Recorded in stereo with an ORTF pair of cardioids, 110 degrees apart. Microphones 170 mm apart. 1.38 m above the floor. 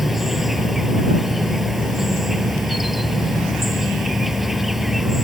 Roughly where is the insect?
Ahead.